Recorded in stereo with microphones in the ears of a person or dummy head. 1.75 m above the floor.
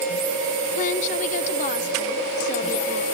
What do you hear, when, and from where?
0.8 s a woman speaking: 50° left (ahead or behind), 1.1 m